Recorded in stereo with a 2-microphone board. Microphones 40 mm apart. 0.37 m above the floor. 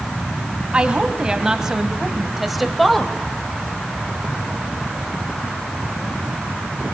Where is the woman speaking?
20° right (ahead or behind), 2.5 m; by 3.1 s 10° left (ahead or behind), 1.8 m.